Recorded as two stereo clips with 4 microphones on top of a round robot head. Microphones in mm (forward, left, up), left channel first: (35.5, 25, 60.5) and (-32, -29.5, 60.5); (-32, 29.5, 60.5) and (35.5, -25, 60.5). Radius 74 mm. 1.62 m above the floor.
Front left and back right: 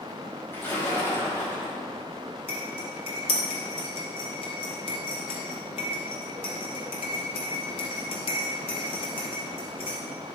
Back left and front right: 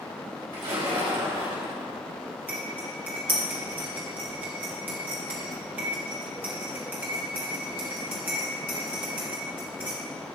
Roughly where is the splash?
Ahead right.